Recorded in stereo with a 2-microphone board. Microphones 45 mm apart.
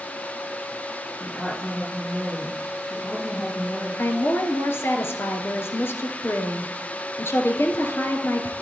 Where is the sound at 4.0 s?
65° left (ahead or behind), 2.5 m.